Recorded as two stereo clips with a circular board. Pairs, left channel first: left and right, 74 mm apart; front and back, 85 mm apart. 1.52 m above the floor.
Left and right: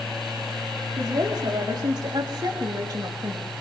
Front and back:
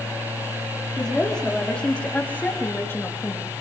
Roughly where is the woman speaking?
Right.